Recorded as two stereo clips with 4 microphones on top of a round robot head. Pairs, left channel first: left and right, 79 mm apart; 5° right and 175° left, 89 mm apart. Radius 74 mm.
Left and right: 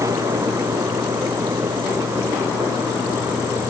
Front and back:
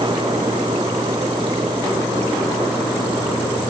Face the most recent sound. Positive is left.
No sound to turn to.